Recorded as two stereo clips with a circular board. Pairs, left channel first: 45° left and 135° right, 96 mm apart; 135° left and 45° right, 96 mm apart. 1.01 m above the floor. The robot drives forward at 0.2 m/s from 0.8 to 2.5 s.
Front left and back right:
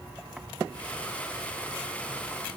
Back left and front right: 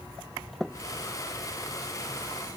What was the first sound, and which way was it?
Only background noise.